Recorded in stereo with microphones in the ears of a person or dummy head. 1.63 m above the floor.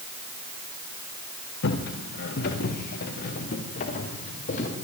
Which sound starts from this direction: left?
Footsteps, at 1.6 s.